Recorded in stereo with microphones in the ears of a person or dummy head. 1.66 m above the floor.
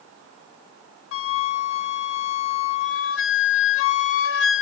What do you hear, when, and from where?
1.1 s a flute: 70° left (ahead or behind), 0.6 m